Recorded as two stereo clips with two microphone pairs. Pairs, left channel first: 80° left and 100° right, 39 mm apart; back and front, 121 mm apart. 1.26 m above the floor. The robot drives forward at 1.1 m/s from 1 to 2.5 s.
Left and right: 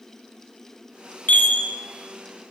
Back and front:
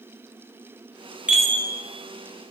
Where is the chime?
80° left, 0.7 m; by 1.6 s 120° left, 0.8 m.